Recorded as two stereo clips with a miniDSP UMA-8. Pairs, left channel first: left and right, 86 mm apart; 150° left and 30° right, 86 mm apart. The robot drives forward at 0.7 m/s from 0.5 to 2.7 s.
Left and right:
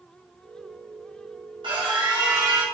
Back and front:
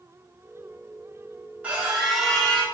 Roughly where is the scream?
Right.